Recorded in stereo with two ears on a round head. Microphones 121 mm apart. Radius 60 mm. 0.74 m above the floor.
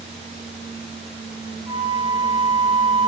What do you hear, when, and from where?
1.7 s a flute: 25° right (ahead or behind), 2.5 m